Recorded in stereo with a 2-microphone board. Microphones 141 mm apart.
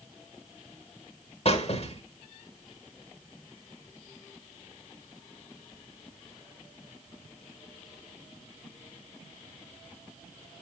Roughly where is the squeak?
Left.